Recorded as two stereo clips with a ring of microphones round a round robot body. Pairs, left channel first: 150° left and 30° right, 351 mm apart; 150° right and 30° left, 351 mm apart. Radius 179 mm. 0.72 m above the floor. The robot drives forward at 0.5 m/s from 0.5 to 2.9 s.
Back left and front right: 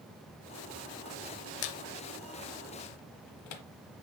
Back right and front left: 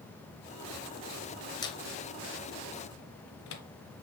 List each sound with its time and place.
1.6 s a squeak: 130° left, 0.7 m; by 3.6 s 155° left, 1.2 m